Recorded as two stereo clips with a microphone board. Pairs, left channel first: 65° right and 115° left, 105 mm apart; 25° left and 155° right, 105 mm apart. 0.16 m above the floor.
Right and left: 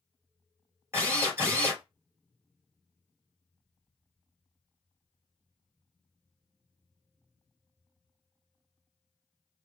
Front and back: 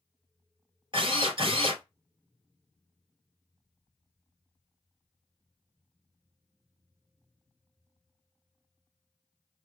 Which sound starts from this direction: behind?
A drill, at 0.9 s.